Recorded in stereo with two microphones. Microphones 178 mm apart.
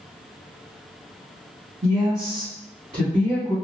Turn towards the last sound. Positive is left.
turn(degrees=-35)  # may be behind; listen again after turning